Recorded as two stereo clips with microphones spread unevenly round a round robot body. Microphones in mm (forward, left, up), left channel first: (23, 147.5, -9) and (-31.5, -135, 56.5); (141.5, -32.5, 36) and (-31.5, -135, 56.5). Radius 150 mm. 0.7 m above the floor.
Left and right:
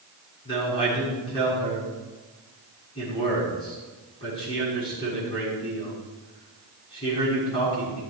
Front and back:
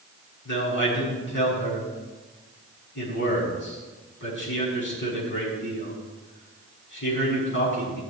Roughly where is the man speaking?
Ahead.